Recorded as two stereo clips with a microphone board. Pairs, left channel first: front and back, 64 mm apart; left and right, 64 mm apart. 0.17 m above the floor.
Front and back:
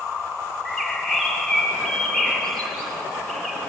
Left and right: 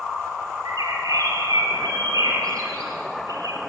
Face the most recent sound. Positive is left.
turn(degrees=-85)